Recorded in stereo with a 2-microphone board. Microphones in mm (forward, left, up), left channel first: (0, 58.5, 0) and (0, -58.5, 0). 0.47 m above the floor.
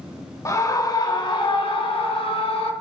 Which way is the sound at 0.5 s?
30° left (ahead or behind).